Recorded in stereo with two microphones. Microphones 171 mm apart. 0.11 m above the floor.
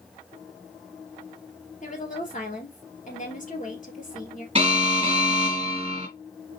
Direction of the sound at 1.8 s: 50° left (ahead or behind).